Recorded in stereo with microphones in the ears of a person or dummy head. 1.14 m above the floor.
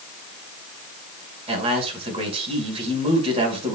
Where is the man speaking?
35° right (ahead or behind), 6 m.